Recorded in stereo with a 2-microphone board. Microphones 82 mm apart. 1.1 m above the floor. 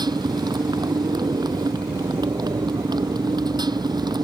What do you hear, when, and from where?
0.0 s a motorcycle: 60° right (ahead or behind)